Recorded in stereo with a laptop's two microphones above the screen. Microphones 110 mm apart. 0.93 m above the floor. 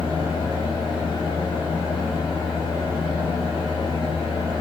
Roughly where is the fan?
Left.